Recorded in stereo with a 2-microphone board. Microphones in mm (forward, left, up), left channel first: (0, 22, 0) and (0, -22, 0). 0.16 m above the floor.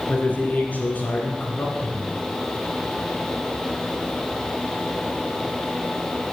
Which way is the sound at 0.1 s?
40° left (ahead or behind).